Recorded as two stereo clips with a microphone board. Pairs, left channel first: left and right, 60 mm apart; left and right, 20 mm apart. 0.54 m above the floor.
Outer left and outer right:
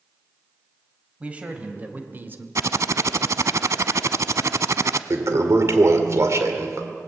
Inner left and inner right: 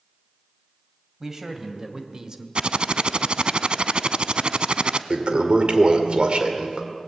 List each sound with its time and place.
1.2 s a man speaking: 20° right (ahead or behind), 3 m; by 2.5 s 40° right (ahead or behind), 1.6 m
2.5 s typing on a keyboard: 60° right (ahead or behind), 0.6 m
5.1 s a toilet flushing: 55° right (ahead or behind), 1.9 m